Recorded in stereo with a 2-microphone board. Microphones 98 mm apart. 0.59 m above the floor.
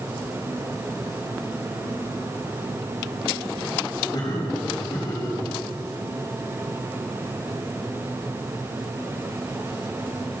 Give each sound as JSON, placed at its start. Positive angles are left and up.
{"t": 4.1, "sound": "laughter", "side_deg": 45, "distance_m": 4.0}